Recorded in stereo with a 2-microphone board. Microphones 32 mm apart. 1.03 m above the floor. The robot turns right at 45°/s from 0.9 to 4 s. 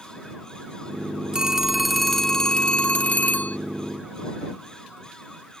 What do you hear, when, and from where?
1.3 s a phone ringing: 30° right; by 3.6 s 75° left